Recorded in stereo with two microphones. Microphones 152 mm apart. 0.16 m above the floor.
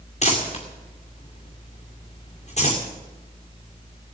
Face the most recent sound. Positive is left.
turn(degrees=45)  # may be behind; listen again after turning